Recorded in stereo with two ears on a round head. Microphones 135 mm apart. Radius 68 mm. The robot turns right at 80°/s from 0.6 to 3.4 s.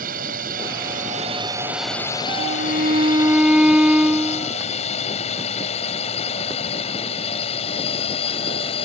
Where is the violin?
90° right; by 4.5 s 5° right.